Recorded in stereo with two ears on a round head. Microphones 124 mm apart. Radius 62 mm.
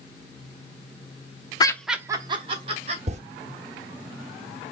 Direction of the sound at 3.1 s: 50° right (ahead or behind).